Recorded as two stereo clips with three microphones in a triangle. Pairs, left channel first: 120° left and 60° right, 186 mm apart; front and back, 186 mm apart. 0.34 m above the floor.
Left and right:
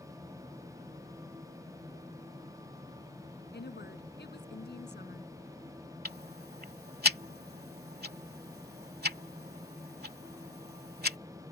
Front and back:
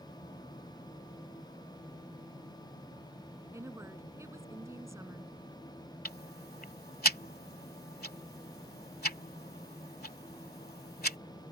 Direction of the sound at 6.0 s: 30° right.